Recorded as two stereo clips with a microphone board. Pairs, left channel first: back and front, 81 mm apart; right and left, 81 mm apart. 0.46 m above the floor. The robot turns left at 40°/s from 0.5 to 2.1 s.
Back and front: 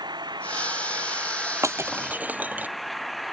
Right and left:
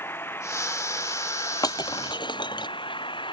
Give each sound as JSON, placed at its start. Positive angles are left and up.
{"t": 0.0, "sound": "an engine running", "azimuth_deg": -25}
{"t": 1.6, "sound": "breaking glass", "azimuth_deg": -50}